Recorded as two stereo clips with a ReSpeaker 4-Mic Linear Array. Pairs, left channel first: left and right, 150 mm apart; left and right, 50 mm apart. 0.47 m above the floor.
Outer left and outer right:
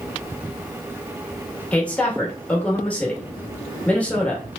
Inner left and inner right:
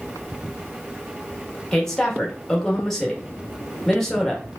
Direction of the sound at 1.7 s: 10° left (ahead or behind).